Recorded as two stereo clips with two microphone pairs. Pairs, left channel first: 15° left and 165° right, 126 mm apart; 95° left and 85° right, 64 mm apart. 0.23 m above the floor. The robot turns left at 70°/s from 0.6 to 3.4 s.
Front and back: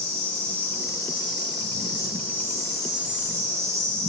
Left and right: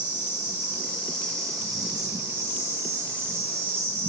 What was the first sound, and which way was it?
An insect, 75° left.